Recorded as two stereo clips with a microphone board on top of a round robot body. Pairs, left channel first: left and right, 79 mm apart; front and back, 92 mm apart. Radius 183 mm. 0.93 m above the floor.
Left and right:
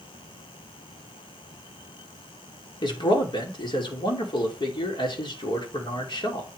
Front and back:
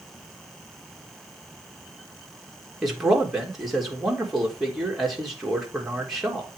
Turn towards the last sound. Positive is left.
turn(degrees=90)